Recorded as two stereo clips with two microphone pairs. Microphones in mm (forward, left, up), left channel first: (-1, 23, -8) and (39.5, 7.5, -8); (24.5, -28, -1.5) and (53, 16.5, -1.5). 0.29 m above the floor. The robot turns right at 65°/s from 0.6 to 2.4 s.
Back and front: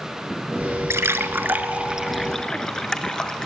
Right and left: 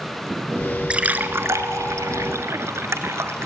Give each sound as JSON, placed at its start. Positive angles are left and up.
{"t": 0.9, "sound": "a splash", "azimuth_deg": -15, "distance_m": 0.9}